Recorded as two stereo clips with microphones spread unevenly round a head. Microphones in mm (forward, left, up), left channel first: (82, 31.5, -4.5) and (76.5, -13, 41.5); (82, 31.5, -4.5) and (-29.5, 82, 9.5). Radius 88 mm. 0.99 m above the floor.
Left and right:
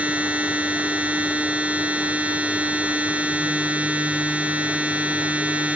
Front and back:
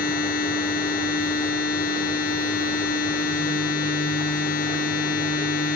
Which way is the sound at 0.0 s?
40° right.